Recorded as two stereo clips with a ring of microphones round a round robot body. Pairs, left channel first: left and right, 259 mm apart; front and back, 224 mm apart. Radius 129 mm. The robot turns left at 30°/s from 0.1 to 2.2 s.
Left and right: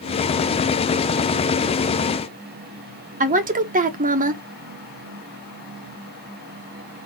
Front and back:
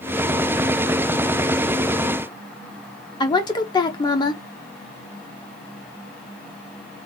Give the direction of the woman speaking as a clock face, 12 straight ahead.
2 o'clock.